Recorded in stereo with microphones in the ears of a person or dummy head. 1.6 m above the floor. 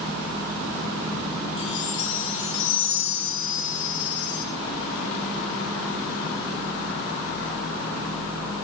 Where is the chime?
75° left (ahead or behind), 5.5 m.